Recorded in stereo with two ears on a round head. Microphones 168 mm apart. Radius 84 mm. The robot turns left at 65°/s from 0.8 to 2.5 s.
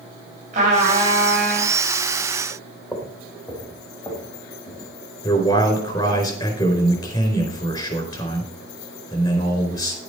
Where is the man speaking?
25° left (ahead or behind), 4.5 m.